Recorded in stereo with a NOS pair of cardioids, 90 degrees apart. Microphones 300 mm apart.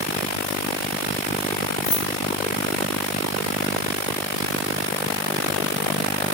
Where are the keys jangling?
60° left, 2.5 m.